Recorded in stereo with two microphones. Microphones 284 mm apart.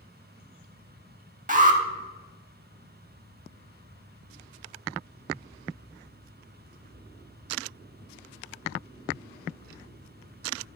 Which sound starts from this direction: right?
An alarm, at 1.5 s.